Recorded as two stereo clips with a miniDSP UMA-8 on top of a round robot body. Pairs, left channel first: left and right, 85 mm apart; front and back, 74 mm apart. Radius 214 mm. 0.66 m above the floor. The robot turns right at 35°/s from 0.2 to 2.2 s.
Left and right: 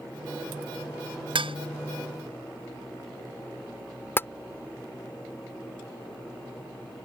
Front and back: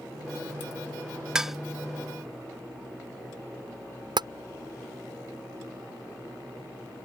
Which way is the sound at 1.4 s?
100° right.